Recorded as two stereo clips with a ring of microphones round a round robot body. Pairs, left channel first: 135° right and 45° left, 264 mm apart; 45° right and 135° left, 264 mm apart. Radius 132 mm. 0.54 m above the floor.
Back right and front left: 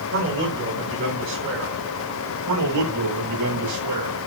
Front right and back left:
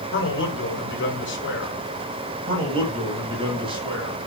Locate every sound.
0.1 s a man speaking: straight ahead, 5.5 m
2.5 s a man speaking: 65° left, 9.5 m